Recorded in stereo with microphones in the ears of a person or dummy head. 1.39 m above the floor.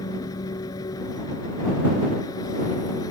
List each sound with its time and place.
0.0 s an engine running: 20° left (ahead or behind)